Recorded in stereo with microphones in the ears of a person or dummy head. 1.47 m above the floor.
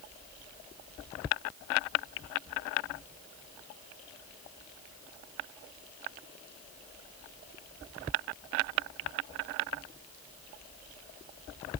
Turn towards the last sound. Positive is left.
No sound to turn to.